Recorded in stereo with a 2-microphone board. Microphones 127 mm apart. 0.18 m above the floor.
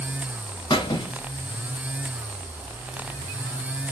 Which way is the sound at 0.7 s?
35° left (ahead or behind).